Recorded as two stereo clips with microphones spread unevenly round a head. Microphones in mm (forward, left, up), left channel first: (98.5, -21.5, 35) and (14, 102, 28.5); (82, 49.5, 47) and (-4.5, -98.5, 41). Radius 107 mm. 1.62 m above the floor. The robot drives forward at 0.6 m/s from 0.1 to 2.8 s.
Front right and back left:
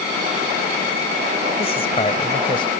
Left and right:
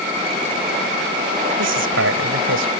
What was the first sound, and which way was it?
A man speaking, 120° right.